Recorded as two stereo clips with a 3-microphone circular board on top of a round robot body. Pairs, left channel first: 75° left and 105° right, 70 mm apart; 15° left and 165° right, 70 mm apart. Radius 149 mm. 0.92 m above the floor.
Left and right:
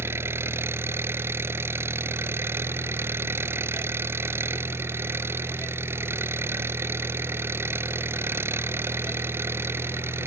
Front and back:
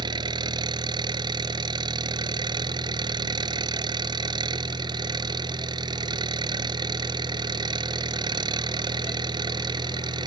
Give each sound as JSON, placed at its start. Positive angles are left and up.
{"t": 0.0, "sound": "an engine running", "azimuth_deg": -160}